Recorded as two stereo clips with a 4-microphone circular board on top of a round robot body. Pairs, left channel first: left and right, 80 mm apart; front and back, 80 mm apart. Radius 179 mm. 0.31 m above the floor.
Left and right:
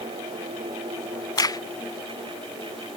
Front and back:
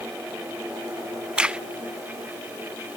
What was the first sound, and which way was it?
A crack, 105° left.